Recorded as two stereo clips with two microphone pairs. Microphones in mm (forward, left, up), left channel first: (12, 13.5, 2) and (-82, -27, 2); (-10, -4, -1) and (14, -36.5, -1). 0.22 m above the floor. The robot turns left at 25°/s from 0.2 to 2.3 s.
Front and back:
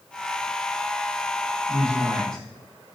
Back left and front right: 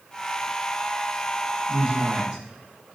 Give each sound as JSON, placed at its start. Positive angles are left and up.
{"t": 1.7, "sound": "a man speaking", "azimuth_deg": -45, "distance_m": 0.9}